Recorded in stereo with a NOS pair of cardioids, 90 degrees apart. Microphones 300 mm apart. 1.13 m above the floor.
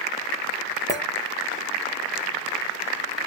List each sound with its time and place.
0.9 s a clink: 10° left, 0.8 m